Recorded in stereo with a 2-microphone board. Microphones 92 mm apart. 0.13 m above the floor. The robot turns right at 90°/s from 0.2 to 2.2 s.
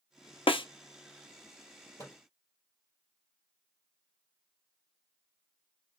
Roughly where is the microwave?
Left.